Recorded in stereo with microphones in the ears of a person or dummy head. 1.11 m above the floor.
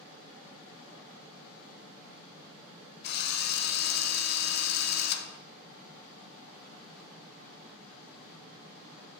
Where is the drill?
55° left (ahead or behind), 0.7 m.